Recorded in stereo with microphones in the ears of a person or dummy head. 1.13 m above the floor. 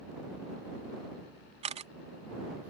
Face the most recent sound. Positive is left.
turn(degrees=-35)  # may be behind; listen again after turning